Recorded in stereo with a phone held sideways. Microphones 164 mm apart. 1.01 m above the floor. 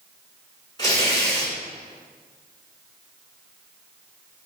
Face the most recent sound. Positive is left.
turn(degrees=30)  # may be behind; listen again after turning